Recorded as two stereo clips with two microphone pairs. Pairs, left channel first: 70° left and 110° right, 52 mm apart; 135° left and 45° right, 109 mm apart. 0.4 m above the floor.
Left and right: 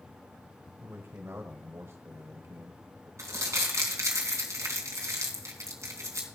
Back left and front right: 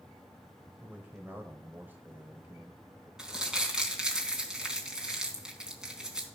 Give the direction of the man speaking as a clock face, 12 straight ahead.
4 o'clock.